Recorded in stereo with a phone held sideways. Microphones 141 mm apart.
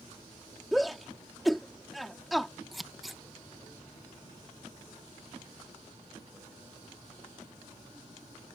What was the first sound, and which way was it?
A shout, centre (ahead or behind).